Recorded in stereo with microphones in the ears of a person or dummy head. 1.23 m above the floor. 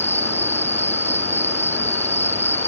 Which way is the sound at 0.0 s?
15° left (ahead or behind).